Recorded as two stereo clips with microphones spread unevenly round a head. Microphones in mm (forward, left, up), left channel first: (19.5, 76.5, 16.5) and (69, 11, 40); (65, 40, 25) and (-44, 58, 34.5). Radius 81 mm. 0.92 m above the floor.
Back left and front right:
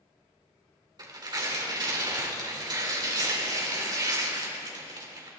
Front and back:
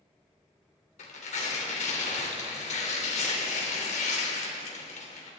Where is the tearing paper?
15° right, 3 m.